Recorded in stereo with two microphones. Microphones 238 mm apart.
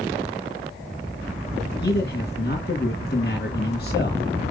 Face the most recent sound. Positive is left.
turn(degrees=45)  # may be behind; listen again after turning